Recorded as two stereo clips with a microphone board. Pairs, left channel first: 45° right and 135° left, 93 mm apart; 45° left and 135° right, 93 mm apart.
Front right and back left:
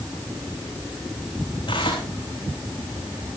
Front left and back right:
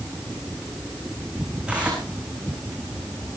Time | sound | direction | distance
1.7 | tearing paper | 60° right | 6 m